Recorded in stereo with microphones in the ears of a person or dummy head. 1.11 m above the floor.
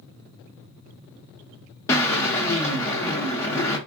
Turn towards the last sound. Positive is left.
turn(degrees=10)  # may be behind; listen again after turning